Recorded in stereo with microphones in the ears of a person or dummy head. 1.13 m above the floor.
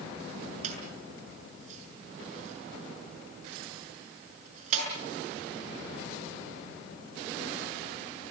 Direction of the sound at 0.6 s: 40° right (ahead or behind).